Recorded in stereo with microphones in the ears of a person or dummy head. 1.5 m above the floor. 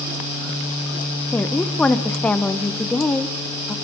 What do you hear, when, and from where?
1.3 s a woman speaking: 10° left (ahead or behind), 1.1 m